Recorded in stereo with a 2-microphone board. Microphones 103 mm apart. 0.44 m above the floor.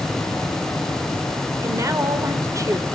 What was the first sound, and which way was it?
A woman speaking, 30° right (ahead or behind).